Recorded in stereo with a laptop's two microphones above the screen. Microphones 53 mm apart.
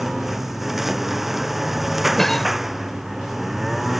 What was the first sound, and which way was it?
A lawn mower, 5° right (ahead or behind).